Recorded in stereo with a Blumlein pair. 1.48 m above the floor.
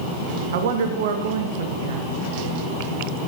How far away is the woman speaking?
About 0.6 m.